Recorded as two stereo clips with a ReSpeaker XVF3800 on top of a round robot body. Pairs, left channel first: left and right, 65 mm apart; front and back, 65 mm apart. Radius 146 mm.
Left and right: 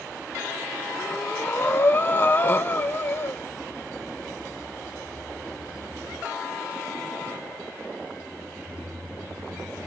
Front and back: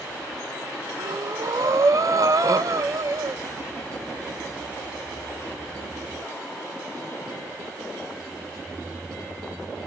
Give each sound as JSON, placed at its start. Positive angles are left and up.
{"t": 1.0, "sound": "breathing", "azimuth_deg": 145, "distance_m": 0.9}